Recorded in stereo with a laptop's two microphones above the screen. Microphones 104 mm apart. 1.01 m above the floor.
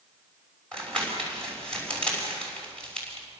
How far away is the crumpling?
About 6 m.